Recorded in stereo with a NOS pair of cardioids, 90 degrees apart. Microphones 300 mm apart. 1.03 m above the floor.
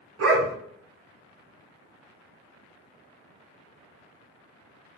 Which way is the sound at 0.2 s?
60° right.